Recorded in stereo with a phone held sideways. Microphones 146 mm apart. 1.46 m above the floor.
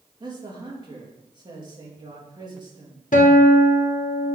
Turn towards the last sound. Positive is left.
turn(degrees=60)  # may be behind; listen again after turning